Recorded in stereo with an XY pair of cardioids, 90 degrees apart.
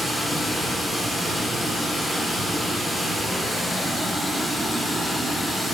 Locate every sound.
0.0 s running water: straight ahead, 2 m